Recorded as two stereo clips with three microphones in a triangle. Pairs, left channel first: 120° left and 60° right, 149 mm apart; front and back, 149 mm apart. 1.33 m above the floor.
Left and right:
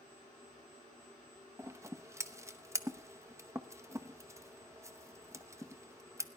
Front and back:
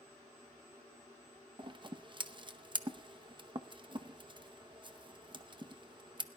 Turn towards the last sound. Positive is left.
turn(degrees=-125)